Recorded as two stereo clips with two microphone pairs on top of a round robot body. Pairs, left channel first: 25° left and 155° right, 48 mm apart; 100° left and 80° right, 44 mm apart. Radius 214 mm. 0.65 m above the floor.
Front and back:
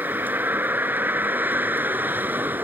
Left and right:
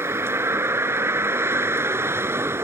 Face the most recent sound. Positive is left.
turn(degrees=-105)